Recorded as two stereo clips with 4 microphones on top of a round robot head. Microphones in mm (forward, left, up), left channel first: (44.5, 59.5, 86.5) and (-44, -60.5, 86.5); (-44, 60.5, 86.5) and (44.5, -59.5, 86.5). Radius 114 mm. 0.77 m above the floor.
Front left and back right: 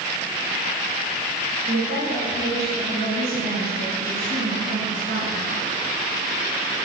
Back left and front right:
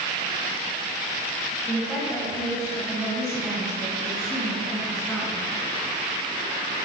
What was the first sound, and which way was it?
A woman speaking, 145° right.